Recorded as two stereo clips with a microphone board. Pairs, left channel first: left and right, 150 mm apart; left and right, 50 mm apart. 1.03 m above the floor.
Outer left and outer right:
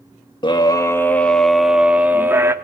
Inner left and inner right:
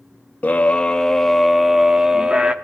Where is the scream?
30° left (ahead or behind), 1.3 m; by 2.5 s 20° right (ahead or behind), 2.0 m.